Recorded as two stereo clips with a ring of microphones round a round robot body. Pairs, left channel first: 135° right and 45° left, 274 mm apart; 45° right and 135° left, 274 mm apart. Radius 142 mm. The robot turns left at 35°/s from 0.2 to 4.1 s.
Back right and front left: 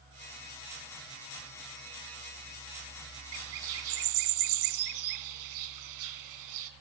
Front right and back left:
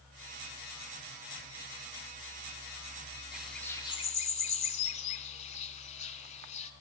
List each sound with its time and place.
3.3 s a bird: 50° left, 0.8 m; by 6.7 s 20° left, 0.8 m